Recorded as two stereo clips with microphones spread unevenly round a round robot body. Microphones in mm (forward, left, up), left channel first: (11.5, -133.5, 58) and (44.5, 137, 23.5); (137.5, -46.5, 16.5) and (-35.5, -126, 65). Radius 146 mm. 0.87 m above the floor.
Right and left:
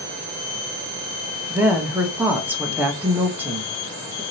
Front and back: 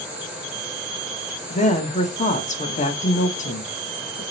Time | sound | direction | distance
1.5 | a woman speaking | 5° left | 1.2 m